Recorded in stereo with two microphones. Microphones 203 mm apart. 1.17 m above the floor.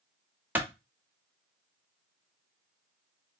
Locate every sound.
0.6 s a clap: 10° right (ahead or behind), 0.8 m